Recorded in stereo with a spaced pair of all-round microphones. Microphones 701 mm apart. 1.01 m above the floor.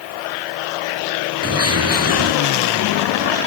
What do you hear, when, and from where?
1.4 s a bird: 20° right (ahead or behind)